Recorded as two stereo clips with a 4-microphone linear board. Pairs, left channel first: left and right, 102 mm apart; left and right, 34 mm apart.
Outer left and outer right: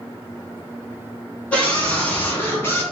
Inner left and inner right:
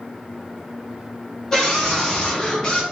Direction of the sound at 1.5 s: 10° left (ahead or behind).